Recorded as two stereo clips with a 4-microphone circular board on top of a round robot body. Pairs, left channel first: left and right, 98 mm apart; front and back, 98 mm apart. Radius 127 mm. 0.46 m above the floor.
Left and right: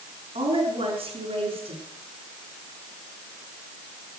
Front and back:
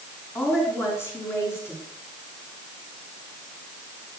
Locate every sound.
0.3 s a woman speaking: 65° right, 6 m